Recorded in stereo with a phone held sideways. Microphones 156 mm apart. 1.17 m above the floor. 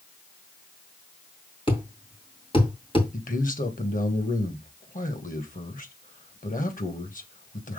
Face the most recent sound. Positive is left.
turn(degrees=55)  # may be behind; listen again after turning